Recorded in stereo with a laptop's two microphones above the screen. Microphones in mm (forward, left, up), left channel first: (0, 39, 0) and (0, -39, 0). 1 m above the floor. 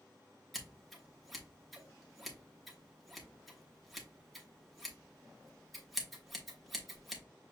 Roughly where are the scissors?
Centre.